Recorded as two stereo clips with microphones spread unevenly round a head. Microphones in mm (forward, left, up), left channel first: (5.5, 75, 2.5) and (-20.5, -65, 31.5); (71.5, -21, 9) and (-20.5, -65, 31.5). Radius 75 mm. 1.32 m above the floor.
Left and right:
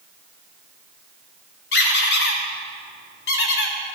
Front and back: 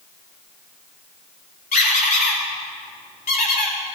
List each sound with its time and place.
1.7 s a squeak: 60° left, 1.7 m